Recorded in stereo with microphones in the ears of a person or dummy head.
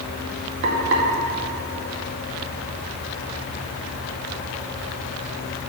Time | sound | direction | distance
0.6 | frying | 65° right (ahead or behind) | 2.5 m